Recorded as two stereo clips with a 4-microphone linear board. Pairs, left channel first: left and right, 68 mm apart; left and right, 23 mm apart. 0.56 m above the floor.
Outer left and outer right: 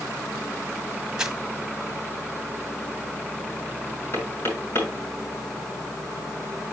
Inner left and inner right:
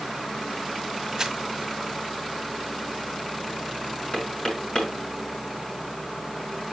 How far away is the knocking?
About 6.5 m.